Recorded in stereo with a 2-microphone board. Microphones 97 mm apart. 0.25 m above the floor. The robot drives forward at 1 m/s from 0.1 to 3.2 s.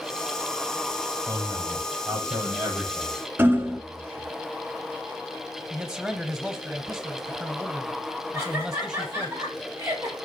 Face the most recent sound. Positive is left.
turn(degrees=-30)  # may be behind; listen again after turning